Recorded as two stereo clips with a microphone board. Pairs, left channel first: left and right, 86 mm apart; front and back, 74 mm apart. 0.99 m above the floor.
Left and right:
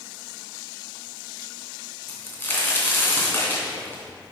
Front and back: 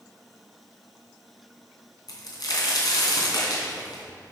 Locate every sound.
2.1 s a crack: 25° left, 3 m